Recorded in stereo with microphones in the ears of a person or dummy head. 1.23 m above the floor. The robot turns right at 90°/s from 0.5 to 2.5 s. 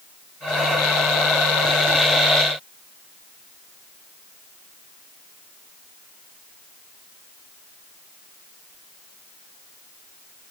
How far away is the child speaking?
No child speaking in this recording.